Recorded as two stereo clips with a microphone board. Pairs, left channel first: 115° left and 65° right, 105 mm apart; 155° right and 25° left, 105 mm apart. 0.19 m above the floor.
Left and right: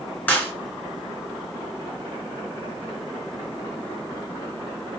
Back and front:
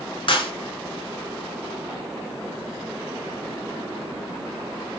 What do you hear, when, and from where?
0.3 s a clap: 175° right, 2.5 m